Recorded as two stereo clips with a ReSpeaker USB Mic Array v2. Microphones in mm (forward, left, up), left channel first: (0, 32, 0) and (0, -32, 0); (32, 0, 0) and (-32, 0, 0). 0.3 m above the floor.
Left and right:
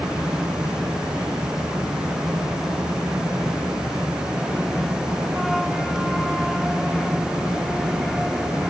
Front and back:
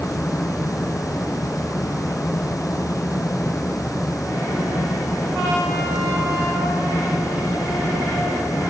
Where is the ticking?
No ticking in this recording.